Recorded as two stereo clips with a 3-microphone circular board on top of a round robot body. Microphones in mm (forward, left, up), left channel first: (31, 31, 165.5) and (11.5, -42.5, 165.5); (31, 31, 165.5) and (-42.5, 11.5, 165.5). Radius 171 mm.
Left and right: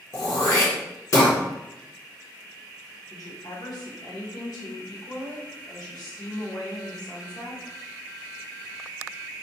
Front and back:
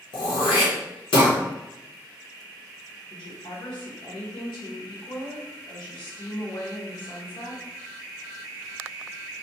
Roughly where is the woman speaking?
Ahead left.